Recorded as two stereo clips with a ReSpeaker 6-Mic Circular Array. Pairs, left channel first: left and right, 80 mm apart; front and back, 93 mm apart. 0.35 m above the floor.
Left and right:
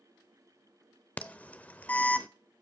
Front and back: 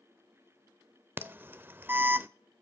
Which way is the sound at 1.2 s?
140° left.